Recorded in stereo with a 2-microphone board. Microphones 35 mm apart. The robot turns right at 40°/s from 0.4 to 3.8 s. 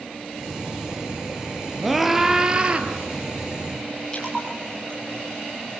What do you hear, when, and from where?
1.8 s a scream: 175° left, 2.5 m; by 2.9 s 140° right, 2.5 m
4.1 s a splash: 15° left (ahead or behind), 5 m